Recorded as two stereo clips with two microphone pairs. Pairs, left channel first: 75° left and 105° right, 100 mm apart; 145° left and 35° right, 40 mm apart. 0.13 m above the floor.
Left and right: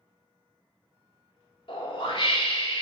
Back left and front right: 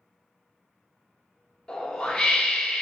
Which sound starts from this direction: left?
A whoosh, at 1.7 s.